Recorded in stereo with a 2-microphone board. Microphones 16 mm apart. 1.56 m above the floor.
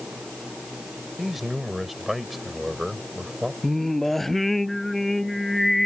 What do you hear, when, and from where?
1.2 s a man speaking: 10° right (ahead or behind)
3.6 s singing: 15° left (ahead or behind)